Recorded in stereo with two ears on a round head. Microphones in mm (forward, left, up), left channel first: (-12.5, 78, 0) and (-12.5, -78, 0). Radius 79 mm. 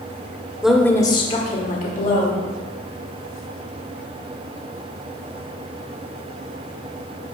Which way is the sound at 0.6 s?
5° right (ahead or behind).